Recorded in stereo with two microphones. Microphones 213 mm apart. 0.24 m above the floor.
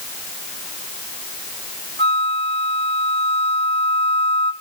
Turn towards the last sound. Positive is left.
turn(degrees=30)  # may be behind; listen again after turning